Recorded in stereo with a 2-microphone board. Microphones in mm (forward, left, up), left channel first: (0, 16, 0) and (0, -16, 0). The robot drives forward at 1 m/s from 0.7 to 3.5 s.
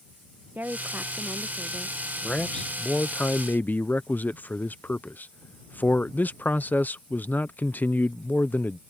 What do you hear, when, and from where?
0.6 s a woman speaking: 80° right; by 2.0 s 50° right (ahead or behind)
2.2 s a man speaking: 25° left (ahead or behind); by 8.8 s 65° left (ahead or behind)